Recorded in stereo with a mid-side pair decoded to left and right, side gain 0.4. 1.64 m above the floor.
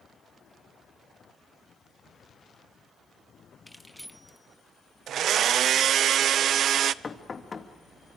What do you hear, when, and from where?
3.7 s keys jangling: 5° left, 2 m; by 6.1 s 30° right, 1.5 m
5.1 s a blender: 70° right, 0.7 m
7.0 s knocking: 40° left, 2 m